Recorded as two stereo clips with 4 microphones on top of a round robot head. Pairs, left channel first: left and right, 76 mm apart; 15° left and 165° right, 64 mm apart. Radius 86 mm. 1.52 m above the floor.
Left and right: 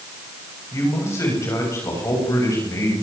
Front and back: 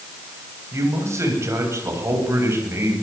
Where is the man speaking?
150° left, 9 m; by 2.9 s 145° left, 10 m.